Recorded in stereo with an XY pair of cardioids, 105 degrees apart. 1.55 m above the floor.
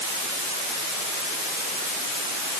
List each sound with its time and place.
Only background noise.